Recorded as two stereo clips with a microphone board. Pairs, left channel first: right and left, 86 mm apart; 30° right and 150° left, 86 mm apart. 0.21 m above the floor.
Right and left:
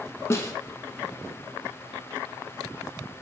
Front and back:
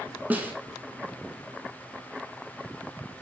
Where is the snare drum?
145° right, 0.6 m.